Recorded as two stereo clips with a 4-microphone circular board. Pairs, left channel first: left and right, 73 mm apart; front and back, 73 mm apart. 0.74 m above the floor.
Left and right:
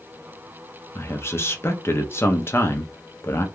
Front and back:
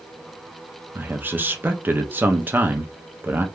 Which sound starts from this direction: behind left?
A man speaking, at 0.9 s.